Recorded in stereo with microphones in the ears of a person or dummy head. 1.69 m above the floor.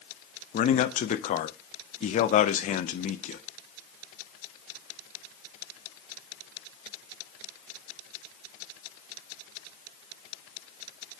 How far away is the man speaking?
About 0.5 m.